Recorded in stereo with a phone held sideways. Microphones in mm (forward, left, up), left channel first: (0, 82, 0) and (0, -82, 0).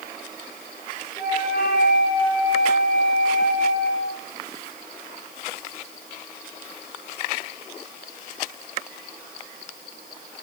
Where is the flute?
65° left (ahead or behind), 3.5 m.